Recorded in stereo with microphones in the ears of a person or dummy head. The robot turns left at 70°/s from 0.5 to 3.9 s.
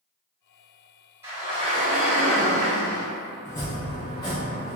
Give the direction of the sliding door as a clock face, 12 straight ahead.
1 o'clock.